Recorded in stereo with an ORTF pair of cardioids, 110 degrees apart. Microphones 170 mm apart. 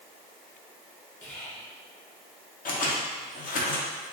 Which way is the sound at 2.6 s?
55° left.